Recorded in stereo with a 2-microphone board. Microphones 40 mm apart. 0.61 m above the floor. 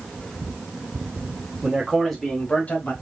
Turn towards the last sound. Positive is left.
turn(degrees=50)  # may be behind; listen again after turning